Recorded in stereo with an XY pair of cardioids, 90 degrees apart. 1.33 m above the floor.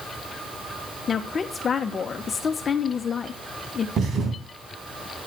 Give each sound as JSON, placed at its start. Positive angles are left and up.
{"t": 1.1, "sound": "a woman speaking", "azimuth_deg": 50, "distance_m": 1.1}
{"t": 4.0, "sound": "a thud", "azimuth_deg": -65, "distance_m": 3.0}